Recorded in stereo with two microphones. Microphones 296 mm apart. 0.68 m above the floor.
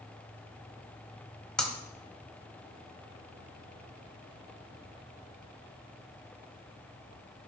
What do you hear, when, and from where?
1.6 s breaking glass: centre (ahead or behind), 1.7 m